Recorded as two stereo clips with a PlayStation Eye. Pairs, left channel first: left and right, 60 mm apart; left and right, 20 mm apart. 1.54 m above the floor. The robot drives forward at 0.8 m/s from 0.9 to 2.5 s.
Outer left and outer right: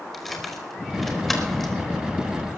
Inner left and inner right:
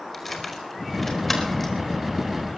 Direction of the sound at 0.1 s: 5° left (ahead or behind).